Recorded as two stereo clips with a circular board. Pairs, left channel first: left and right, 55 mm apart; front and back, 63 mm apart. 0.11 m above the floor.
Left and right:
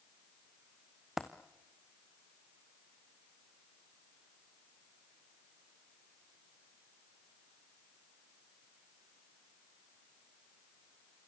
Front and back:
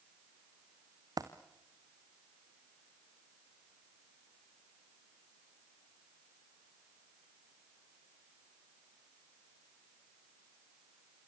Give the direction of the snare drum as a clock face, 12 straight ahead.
I don't hear a snare drum.